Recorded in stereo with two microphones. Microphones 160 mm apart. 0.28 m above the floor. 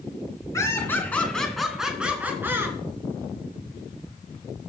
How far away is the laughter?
About 2.5 m.